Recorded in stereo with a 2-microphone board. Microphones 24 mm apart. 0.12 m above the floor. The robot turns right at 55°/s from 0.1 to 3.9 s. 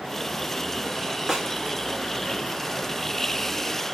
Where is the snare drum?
25° right (ahead or behind), 0.8 m; by 1.5 s 30° right (ahead or behind), 0.8 m.